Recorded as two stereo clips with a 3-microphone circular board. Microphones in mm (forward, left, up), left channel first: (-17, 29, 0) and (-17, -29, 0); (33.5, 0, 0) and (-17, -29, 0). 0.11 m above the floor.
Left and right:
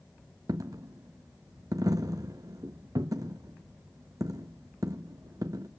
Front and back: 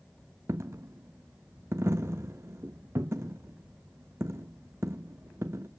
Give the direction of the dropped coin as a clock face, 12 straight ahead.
4 o'clock.